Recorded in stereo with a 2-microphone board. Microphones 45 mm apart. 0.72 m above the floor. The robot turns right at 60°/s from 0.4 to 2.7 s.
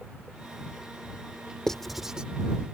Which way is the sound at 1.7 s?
15° left (ahead or behind).